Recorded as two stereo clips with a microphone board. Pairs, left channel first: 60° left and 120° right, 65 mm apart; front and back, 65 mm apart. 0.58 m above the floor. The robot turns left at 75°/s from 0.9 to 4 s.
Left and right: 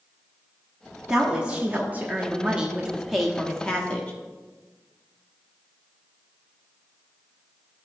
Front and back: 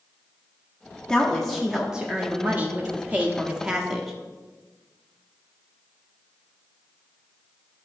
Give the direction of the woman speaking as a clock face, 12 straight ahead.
2 o'clock.